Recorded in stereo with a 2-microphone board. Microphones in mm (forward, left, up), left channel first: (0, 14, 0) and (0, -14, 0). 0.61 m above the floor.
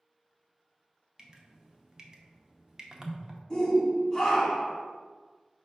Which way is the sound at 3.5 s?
25° left (ahead or behind).